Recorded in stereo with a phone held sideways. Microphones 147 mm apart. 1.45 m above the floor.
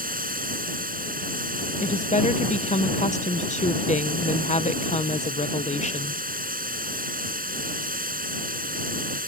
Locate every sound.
0.0 s running water: 75° right (ahead or behind)
1.8 s a woman speaking: 55° left (ahead or behind)